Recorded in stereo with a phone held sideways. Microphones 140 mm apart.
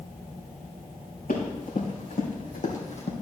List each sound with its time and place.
1.3 s running footsteps: 80° left, 4 m; by 3.1 s 50° left (ahead or behind), 2.0 m